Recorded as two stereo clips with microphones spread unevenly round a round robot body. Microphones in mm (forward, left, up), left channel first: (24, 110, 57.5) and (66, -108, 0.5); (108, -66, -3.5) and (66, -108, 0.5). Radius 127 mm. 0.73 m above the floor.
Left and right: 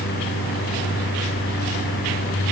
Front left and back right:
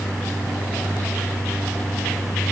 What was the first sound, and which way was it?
Only background noise.